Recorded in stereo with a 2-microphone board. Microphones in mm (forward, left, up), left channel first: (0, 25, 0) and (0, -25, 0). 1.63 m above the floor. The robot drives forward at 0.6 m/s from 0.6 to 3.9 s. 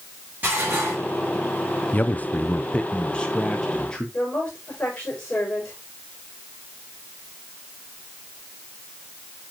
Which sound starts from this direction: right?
Dishes clattering, at 0.4 s.